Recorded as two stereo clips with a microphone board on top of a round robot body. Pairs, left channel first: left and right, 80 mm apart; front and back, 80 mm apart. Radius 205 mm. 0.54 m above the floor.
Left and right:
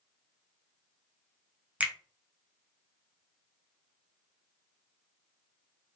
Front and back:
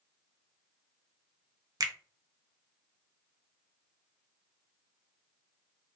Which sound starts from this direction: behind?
A finger snap, at 1.8 s.